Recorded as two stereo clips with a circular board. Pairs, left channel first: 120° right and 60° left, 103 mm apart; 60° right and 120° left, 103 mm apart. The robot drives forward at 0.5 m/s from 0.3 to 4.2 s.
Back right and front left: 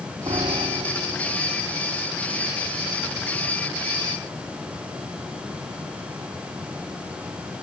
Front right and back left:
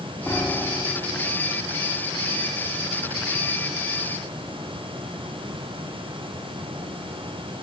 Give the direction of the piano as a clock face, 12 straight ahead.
11 o'clock.